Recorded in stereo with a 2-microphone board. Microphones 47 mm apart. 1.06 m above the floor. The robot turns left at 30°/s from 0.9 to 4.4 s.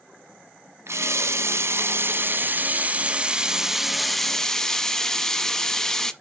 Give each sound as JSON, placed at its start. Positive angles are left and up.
{"t": 0.9, "sound": "a running tap", "azimuth_deg": -85, "distance_m": 0.7}